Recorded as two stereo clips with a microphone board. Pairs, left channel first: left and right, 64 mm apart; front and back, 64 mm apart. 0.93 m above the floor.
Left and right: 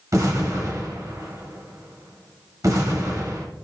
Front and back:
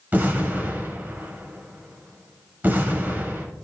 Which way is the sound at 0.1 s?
120° right.